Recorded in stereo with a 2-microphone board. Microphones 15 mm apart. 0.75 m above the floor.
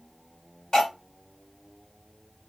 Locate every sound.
0.7 s cutlery clinking: 60° left (ahead or behind), 1.3 m